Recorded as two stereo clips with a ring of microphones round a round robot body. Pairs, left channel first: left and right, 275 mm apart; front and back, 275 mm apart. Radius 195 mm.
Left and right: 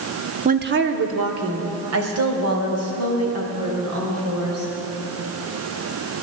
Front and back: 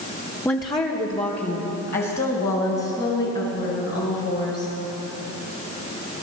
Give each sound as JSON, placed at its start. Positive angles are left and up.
{"t": 0.5, "sound": "a woman speaking", "azimuth_deg": -75, "distance_m": 0.8}